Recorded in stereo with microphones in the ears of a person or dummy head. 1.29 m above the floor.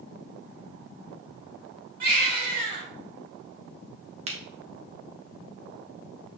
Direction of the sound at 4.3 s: 25° right (ahead or behind).